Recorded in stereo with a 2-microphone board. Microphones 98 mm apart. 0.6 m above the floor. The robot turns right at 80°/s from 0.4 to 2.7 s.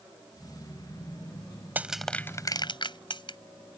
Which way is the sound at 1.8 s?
20° right (ahead or behind).